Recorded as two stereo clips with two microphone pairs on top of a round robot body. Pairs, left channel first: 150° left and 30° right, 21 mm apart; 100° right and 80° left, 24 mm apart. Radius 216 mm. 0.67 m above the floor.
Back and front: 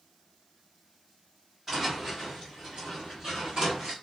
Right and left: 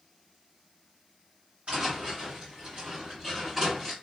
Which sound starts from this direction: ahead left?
Footsteps, at 1.7 s.